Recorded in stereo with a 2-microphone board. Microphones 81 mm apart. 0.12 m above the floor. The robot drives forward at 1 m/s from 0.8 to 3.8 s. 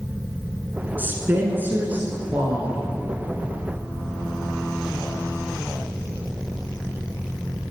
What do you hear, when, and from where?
1.0 s a woman speaking: 25° right (ahead or behind), 1.1 m; by 2.9 s 15° right (ahead or behind), 2 m